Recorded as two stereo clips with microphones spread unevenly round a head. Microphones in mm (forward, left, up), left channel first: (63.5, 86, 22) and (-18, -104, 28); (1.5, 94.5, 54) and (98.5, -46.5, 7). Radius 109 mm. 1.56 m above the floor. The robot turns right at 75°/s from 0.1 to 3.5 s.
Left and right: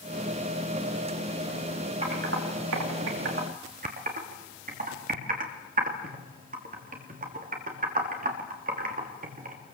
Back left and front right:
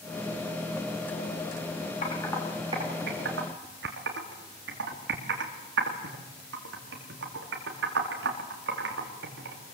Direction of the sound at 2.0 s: Straight behind.